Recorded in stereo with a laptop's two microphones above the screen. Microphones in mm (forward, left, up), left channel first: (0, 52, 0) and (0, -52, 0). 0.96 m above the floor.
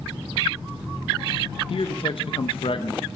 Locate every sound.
1.7 s a man speaking: 60° left (ahead or behind), 0.7 m